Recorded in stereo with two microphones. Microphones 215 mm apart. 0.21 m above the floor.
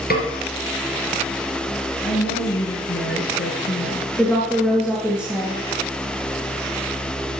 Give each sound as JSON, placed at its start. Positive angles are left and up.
{"t": 0.1, "sound": "a snare drum", "side_deg": 45, "distance_m": 2.5}
{"t": 2.0, "sound": "a woman speaking", "side_deg": 65, "distance_m": 4.0}
{"t": 4.2, "sound": "a woman speaking", "side_deg": 10, "distance_m": 3.0}